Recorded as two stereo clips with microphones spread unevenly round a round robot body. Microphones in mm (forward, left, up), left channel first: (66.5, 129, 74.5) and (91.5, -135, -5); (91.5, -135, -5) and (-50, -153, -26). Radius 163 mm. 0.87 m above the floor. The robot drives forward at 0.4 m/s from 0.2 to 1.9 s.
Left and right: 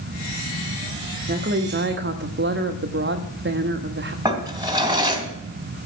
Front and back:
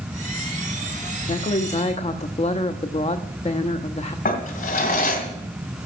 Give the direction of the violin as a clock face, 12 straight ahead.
I don't hear a violin.